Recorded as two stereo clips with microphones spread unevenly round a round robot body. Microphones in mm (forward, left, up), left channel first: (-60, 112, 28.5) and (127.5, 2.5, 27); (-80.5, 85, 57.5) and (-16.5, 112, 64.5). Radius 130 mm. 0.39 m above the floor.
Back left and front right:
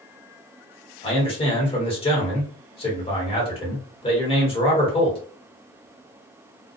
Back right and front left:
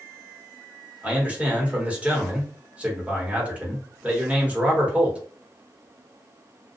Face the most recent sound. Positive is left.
turn(degrees=95)